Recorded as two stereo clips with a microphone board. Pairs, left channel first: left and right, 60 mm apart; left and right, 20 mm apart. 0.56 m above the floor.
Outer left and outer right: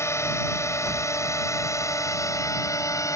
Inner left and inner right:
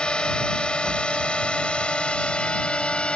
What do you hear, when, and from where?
0.0 s a drone: 50° left (ahead or behind); by 3.2 s 65° left (ahead or behind)